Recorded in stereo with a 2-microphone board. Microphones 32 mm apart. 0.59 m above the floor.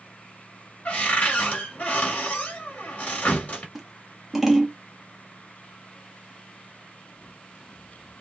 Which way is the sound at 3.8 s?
10° right (ahead or behind).